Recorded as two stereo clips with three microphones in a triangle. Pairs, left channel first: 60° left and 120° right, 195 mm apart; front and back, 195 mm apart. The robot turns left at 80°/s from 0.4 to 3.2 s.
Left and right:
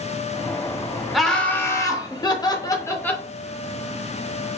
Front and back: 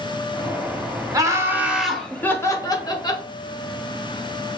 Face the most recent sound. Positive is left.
turn(degrees=-10)